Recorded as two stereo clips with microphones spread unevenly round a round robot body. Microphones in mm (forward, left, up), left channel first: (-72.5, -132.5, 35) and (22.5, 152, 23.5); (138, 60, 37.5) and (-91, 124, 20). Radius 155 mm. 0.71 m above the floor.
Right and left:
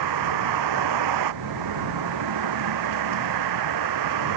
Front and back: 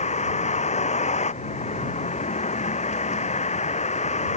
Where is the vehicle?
45° left.